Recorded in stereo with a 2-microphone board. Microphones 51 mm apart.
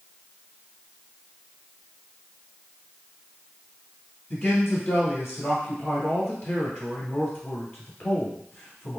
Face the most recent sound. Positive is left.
turn(degrees=40)  # may be behind; listen again after turning